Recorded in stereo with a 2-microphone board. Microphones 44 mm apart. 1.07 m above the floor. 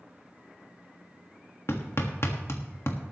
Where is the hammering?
70° left (ahead or behind), 1.5 m.